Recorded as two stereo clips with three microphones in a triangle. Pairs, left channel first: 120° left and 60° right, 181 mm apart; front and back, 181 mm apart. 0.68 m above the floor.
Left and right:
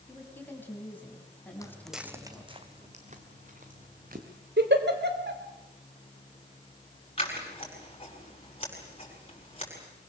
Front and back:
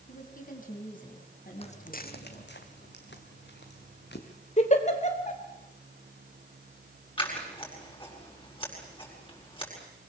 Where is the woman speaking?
40° left, 4.5 m; by 2.6 s 35° left, 6.5 m.